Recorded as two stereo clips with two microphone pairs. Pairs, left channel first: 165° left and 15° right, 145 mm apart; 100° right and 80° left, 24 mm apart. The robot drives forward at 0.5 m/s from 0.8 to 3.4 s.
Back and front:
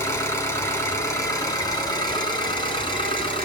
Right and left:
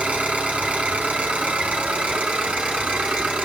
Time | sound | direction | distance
0.0 | an engine running | 95° left | 3.5 m